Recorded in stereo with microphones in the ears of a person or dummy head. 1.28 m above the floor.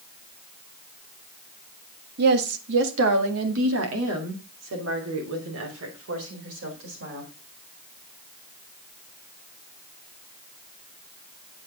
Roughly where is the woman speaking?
Right.